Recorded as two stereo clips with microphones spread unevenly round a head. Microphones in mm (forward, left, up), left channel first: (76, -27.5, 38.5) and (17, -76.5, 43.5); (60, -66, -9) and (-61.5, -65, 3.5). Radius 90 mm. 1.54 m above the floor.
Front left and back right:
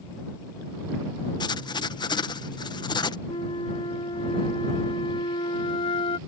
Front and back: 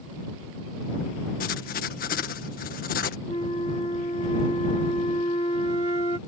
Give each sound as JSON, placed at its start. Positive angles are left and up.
{"t": 1.4, "sound": "writing", "azimuth_deg": 20}
{"t": 3.3, "sound": "a flute", "azimuth_deg": 60}